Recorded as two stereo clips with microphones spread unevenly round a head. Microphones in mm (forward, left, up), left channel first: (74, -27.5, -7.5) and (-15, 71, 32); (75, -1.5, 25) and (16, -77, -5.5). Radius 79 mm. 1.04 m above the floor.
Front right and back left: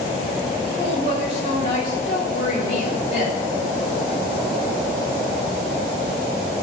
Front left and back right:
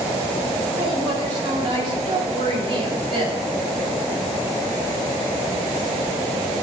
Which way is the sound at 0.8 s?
100° right.